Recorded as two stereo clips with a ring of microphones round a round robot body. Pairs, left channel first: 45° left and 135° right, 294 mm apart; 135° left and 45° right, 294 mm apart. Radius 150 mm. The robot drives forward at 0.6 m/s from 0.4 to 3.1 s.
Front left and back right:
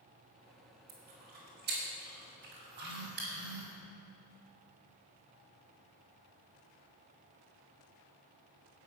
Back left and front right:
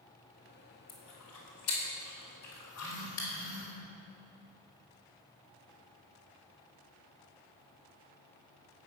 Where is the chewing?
165° left, 3.5 m; by 3.3 s 170° left, 4.5 m.